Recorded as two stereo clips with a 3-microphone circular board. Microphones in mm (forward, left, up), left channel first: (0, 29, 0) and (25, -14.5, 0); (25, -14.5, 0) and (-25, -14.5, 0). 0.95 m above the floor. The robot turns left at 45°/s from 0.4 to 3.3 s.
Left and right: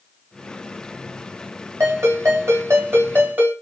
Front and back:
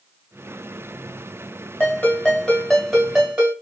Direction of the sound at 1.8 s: 45° right.